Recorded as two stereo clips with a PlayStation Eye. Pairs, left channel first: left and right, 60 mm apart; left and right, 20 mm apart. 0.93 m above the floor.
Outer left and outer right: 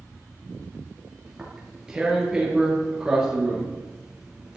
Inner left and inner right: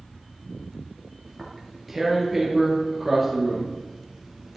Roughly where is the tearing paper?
Centre.